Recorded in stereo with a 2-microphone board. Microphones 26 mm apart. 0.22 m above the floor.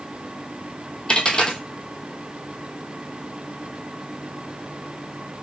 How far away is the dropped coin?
About 0.9 m.